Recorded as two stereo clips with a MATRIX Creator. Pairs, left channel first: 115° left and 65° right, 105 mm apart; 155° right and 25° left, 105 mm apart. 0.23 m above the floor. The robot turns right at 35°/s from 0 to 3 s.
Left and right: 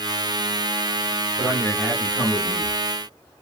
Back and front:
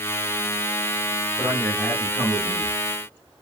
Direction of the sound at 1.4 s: 155° left.